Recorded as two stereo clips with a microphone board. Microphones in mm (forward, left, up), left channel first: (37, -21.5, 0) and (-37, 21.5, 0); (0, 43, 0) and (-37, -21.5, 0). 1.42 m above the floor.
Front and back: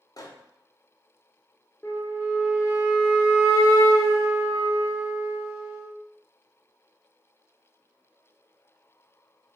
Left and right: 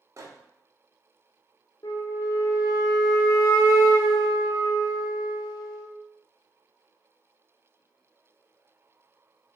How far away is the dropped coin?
No dropped coin in this recording.